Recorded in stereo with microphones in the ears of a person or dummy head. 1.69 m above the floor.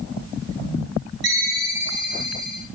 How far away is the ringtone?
About 3.5 m.